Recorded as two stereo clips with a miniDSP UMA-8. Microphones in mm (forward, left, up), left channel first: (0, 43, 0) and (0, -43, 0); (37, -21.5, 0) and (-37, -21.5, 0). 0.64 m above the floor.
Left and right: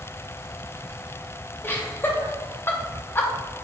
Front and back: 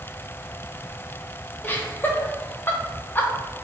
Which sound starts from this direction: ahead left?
Laughter, at 1.6 s.